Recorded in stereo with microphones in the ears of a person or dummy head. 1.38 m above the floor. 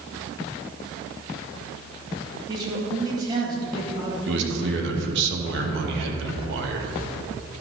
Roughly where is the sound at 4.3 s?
Right.